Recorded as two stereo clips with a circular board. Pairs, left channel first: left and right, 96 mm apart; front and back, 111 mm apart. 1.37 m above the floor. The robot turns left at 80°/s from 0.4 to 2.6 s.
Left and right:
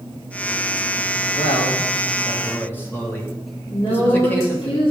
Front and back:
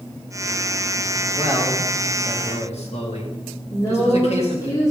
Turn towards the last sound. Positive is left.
turn(degrees=60)